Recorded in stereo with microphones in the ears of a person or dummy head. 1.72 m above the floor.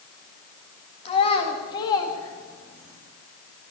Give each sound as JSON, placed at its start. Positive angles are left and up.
{"t": 1.1, "sound": "a child speaking", "side_deg": 30, "distance_m": 1.7}